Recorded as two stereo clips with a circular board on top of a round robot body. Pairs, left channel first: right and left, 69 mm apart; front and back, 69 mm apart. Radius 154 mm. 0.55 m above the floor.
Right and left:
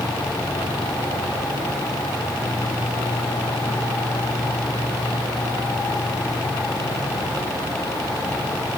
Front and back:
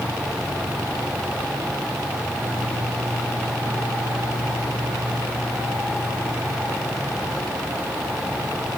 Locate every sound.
Only background noise.